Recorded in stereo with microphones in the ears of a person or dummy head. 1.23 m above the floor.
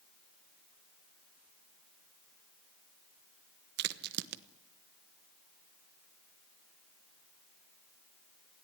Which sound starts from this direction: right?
A crack, at 3.8 s.